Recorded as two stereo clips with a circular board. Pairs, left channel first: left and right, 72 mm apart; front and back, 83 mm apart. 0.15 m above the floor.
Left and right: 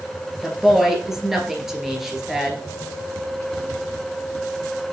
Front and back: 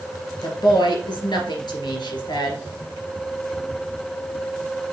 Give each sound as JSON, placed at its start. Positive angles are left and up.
{"t": 0.4, "sound": "a woman speaking", "azimuth_deg": -5, "distance_m": 2.5}